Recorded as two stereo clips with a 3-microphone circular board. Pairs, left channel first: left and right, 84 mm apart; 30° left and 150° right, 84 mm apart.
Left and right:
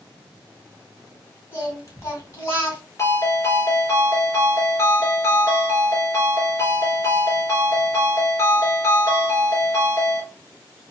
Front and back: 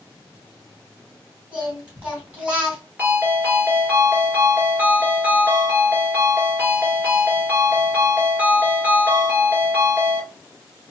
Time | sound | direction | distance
1.5 | singing | 135° left | 2.5 m
3.0 | a ringtone | 140° left | 2 m